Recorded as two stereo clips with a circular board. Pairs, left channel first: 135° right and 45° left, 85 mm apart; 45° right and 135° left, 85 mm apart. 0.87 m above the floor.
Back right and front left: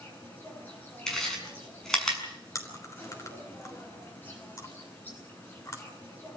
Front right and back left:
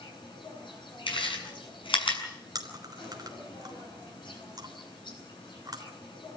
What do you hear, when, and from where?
0.0 s an insect: 70° right, 9 m
1.1 s chewing: 50° right, 6.5 m
2.5 s chewing: 175° left, 3.5 m